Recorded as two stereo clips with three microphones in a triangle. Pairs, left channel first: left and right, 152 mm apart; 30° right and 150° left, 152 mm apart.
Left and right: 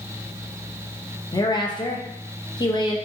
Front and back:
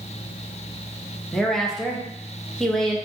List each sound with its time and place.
1.3 s a woman speaking: 55° left, 0.7 m